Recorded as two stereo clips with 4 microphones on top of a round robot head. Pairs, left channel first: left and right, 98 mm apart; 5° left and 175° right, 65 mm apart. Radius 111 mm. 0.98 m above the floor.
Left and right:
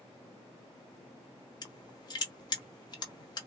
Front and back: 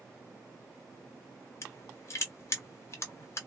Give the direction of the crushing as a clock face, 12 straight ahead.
10 o'clock.